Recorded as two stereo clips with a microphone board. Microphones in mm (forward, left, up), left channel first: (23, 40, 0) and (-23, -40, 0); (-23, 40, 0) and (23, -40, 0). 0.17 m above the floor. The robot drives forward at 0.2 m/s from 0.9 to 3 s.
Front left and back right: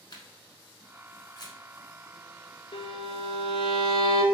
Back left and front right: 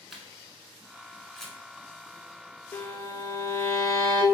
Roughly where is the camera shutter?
Ahead left.